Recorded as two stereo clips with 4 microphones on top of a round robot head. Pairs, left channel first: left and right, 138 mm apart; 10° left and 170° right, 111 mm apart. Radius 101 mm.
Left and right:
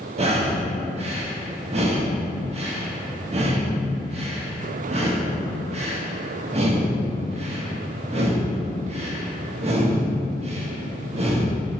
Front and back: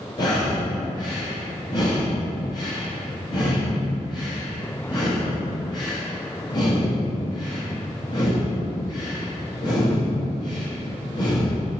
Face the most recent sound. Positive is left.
turn(degrees=-50)